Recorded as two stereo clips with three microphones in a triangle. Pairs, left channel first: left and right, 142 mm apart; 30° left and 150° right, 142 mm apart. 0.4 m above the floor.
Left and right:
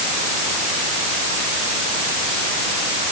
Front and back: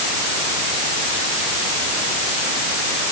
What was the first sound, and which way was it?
Only background noise.